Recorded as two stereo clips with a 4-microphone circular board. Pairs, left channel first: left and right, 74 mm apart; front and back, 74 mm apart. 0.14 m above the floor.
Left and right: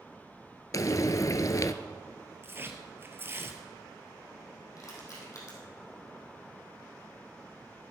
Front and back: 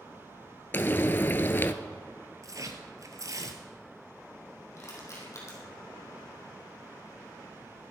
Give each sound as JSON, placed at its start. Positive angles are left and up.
{"t": 0.7, "sound": "frying", "azimuth_deg": 55, "distance_m": 0.6}
{"t": 2.4, "sound": "tearing paper", "azimuth_deg": -145, "distance_m": 1.2}
{"t": 4.8, "sound": "crushing", "azimuth_deg": 45, "distance_m": 3.5}